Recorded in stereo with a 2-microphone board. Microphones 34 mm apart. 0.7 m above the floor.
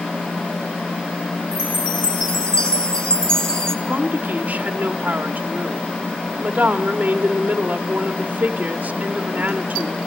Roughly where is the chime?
Left.